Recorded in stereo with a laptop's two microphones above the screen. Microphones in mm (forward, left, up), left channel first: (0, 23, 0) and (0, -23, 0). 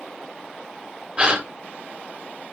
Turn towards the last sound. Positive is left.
turn(degrees=-25)  # may be behind; listen again after turning